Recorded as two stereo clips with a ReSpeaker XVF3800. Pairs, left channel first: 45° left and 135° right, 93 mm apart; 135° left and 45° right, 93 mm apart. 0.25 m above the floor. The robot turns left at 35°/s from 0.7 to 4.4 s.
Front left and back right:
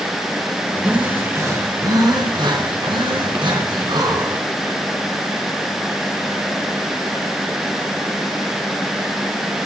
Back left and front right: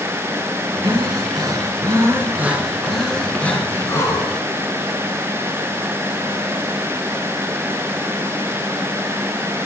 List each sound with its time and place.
0.8 s breathing: 60° right, 3 m; by 4.8 s 175° left, 3 m